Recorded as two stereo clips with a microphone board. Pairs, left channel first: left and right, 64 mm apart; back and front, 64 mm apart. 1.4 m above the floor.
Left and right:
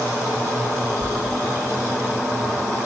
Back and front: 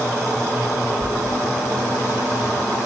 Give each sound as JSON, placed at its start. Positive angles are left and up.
{"t": 1.0, "sound": "a sliding door", "azimuth_deg": -170, "distance_m": 7.0}